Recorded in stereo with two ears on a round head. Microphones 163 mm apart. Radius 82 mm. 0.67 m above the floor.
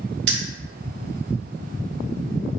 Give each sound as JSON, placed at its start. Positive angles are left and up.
{"t": 0.3, "sound": "keys jangling", "side_deg": -65, "distance_m": 1.3}